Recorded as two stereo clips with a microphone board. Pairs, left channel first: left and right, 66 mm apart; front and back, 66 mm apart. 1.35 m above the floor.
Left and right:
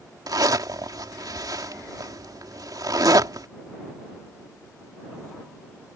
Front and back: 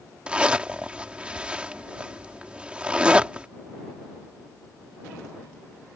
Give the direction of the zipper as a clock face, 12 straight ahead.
4 o'clock.